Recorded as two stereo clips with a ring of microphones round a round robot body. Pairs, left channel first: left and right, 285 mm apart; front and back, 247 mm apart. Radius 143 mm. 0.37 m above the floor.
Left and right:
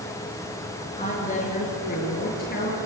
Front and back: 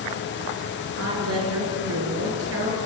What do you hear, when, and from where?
1.0 s a woman speaking: 155° left, 8 m; by 2.8 s 150° left, 9 m